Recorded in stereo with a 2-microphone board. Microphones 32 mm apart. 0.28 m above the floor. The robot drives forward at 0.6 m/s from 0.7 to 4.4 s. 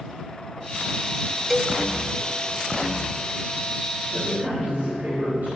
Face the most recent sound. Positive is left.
turn(degrees=-55)  # may be behind; listen again after turning